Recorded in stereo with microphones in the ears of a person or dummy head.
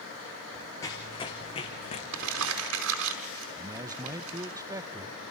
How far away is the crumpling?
About 5 m.